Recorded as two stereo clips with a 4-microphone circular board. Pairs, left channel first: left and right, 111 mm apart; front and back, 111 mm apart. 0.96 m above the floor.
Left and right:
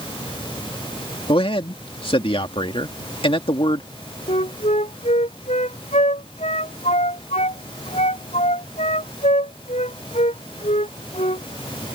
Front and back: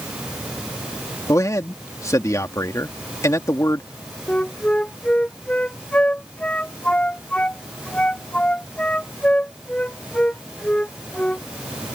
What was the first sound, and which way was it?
A man speaking, 60° left.